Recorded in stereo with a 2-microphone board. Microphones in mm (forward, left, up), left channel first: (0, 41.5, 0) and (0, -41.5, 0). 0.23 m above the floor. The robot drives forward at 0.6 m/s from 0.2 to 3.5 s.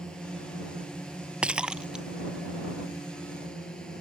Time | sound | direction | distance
0.0 | a drone | 10° left (ahead or behind) | ?
1.4 | breaking glass | 15° right (ahead or behind) | ?